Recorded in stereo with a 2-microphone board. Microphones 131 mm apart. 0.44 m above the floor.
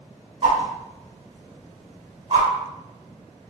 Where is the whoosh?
50° right (ahead or behind), 1.7 m.